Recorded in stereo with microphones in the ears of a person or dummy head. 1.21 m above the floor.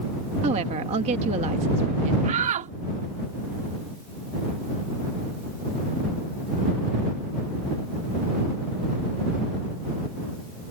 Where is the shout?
40° right (ahead or behind).